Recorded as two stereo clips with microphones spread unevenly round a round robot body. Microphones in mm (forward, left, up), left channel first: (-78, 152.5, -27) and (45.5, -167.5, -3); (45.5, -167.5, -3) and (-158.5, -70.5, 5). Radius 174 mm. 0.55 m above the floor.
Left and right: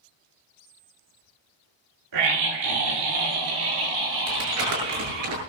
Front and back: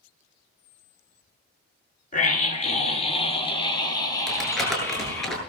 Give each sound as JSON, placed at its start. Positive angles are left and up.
{"t": 2.1, "sound": "a scream", "azimuth_deg": -80, "distance_m": 6.5}
{"t": 4.3, "sound": "crumpling", "azimuth_deg": -115, "distance_m": 9.0}